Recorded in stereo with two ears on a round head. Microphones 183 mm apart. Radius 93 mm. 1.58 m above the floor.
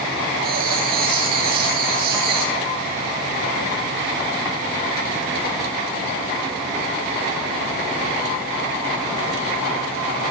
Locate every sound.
0.4 s writing: 45° right (ahead or behind), 9.5 m